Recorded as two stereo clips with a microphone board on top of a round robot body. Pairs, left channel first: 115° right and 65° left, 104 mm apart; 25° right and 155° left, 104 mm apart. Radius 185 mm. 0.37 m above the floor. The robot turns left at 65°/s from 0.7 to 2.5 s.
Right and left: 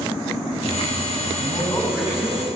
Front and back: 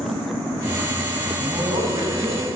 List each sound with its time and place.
1.4 s a man speaking: 145° right, 3 m; by 2.5 s 150° left, 3 m